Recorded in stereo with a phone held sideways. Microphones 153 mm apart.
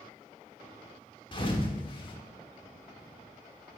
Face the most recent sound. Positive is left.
turn(degrees=30)  # may be behind; listen again after turning